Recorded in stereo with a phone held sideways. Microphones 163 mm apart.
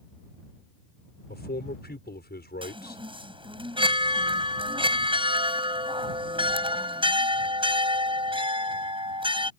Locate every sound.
1.3 s a man speaking: 80° left
2.6 s a chime: 30° right (ahead or behind)